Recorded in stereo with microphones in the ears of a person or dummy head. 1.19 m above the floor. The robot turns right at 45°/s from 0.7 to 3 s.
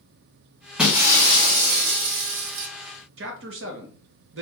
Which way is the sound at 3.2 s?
60° right (ahead or behind).